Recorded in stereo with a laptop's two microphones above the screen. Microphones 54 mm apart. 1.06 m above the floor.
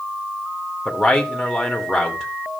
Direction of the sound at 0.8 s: Centre (ahead or behind).